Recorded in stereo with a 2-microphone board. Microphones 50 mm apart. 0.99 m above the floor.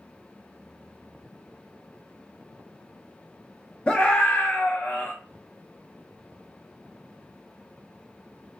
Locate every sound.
3.9 s a scream: 20° left (ahead or behind), 0.6 m; by 5.1 s 35° left (ahead or behind), 0.7 m